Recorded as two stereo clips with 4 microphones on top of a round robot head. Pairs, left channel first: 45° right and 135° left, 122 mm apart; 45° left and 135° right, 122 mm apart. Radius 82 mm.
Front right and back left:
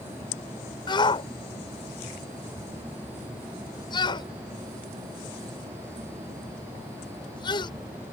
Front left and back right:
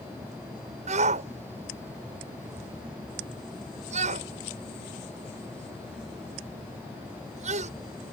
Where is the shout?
100° right.